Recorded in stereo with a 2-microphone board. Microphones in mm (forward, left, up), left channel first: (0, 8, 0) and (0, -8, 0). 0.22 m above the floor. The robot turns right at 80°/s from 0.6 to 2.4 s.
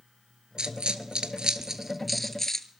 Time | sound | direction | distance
0.6 | a dropped coin | 55° right (ahead or behind) | 0.7 m